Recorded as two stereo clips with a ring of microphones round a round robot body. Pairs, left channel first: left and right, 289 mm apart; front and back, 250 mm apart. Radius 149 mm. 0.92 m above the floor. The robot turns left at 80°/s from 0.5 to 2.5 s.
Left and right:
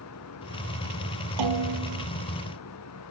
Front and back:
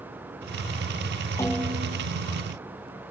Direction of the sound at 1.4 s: 80° right.